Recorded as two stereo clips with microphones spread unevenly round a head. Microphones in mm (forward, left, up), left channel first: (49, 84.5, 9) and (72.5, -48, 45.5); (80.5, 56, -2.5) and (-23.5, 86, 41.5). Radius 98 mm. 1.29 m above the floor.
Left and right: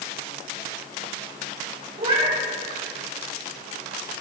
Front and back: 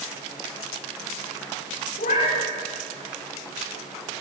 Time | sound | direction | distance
2.0 | a cat meowing | 45° right | 8.5 m